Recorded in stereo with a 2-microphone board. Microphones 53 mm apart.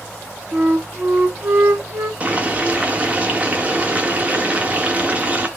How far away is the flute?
About 1.2 m.